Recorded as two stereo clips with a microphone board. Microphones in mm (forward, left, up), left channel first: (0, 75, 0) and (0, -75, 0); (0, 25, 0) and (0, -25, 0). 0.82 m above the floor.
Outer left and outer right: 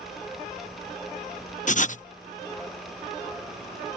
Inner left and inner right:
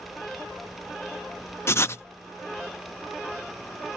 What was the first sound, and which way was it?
Writing, 55° left (ahead or behind).